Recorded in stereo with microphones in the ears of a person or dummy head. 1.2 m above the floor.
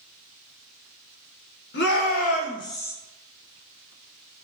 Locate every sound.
1.7 s a shout: 50° left (ahead or behind), 1.0 m; by 2.9 s 10° left (ahead or behind), 0.9 m